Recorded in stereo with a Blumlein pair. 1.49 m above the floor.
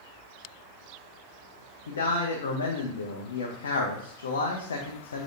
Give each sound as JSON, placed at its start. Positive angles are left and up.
{"t": 1.9, "sound": "a man speaking", "azimuth_deg": 65, "distance_m": 0.7}